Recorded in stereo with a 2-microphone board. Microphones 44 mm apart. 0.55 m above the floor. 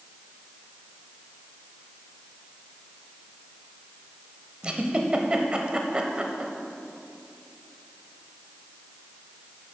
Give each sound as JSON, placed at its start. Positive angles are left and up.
{"t": 4.6, "sound": "a giggle", "side_deg": -25, "distance_m": 0.7}